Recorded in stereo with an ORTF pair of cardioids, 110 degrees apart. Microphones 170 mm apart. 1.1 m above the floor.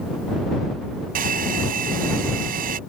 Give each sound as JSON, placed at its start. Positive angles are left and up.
{"t": 1.1, "sound": "a hair dryer", "azimuth_deg": -60}